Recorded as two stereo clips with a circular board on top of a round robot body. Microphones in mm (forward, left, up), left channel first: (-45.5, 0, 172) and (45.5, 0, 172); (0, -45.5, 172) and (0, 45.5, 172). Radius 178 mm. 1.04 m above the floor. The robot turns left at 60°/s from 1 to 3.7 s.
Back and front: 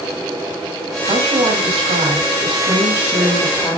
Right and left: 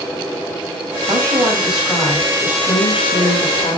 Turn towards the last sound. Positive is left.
turn(degrees=-110)